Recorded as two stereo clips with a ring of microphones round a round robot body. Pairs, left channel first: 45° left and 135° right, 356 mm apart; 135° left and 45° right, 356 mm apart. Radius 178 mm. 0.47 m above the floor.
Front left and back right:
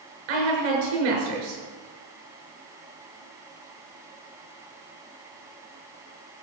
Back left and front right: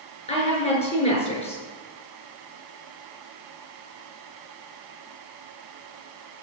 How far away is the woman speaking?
About 6.5 m.